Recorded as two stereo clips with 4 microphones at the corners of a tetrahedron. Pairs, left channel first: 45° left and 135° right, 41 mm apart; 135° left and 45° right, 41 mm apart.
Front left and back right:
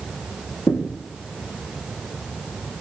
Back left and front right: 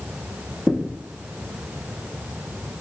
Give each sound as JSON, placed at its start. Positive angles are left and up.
{"t": 0.7, "sound": "a thud", "azimuth_deg": 60, "distance_m": 4.0}